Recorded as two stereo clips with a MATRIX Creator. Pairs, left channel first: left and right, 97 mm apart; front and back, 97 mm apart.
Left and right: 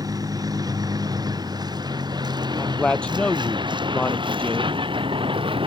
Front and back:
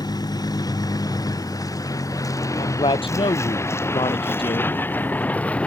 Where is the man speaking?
10° left.